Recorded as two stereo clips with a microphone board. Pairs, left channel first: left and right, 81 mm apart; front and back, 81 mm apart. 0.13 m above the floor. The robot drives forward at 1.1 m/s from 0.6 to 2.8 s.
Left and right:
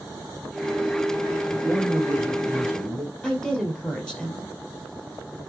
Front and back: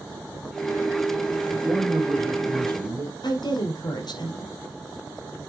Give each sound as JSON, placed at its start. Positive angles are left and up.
{"t": 1.5, "sound": "a man speaking", "azimuth_deg": -145, "distance_m": 1.5}
{"t": 3.2, "sound": "a woman speaking", "azimuth_deg": 10, "distance_m": 2.5}